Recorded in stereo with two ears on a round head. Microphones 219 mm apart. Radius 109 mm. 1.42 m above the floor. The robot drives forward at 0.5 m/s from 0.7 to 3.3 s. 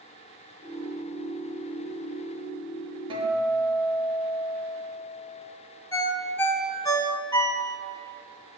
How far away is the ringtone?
About 0.6 m.